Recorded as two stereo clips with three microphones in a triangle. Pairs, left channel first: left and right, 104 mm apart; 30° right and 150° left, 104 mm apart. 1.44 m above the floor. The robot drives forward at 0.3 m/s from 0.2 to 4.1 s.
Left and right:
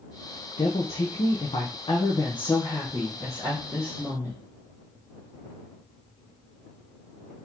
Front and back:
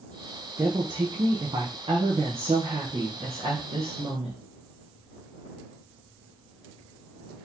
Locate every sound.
0.6 s a woman speaking: 100° left, 0.7 m; by 4.4 s 150° left, 1.3 m